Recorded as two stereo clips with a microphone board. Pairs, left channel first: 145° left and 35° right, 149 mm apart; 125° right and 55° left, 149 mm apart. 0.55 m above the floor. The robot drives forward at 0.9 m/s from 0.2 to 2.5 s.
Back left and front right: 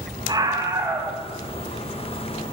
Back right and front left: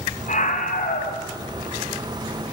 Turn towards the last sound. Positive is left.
turn(degrees=-130)